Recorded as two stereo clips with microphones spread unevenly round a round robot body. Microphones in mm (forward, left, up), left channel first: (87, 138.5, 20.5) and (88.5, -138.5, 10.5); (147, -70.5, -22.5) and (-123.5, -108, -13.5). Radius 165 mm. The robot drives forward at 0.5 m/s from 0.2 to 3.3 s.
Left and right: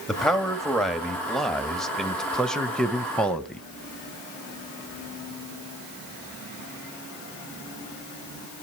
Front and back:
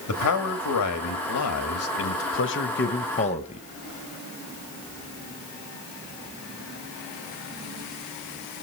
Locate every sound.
0.1 s a man speaking: straight ahead, 2 m